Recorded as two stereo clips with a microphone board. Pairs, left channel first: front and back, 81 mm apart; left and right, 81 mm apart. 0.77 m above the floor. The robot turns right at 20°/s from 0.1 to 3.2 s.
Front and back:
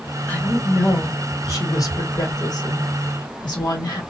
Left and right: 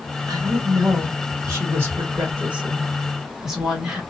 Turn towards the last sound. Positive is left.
turn(degrees=-5)